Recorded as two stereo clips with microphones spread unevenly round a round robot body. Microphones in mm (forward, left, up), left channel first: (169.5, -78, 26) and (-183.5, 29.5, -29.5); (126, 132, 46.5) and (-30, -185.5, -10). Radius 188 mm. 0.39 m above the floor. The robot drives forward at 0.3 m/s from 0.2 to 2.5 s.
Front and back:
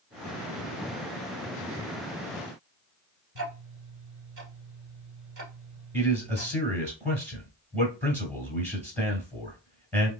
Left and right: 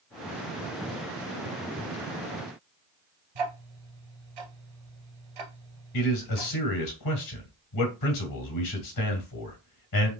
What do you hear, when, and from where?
3.4 s ticking: 140° right, 1.8 m
5.9 s a man speaking: 100° left, 1.4 m